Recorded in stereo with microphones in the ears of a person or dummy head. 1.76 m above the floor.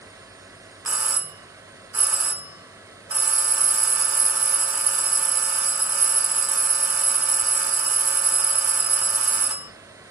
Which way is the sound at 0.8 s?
10° right (ahead or behind).